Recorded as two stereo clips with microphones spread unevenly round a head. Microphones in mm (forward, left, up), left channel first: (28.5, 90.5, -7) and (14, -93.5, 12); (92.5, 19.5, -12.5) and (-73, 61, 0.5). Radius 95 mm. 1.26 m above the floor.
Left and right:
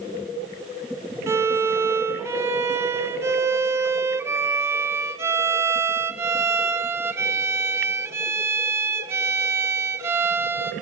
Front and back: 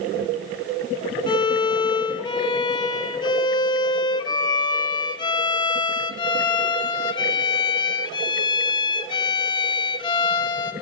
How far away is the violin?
About 0.5 m.